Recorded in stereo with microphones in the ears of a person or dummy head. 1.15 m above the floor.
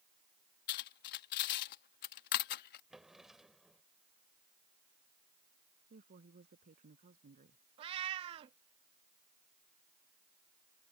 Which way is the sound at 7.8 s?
25° right (ahead or behind).